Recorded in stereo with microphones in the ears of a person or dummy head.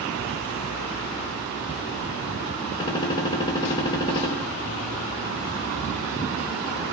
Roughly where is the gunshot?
Left.